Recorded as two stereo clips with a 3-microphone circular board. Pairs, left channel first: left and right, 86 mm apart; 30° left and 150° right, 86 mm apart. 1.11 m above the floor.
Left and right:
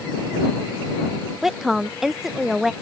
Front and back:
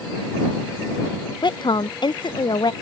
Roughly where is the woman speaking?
Ahead.